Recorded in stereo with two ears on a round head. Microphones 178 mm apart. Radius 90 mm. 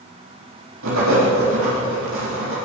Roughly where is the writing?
Right.